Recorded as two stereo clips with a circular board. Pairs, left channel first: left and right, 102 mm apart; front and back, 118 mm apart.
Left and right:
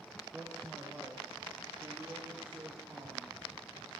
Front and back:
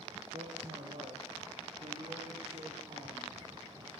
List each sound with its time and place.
0.3 s a man speaking: 175° right, 8 m; by 3.9 s 155° right, 11 m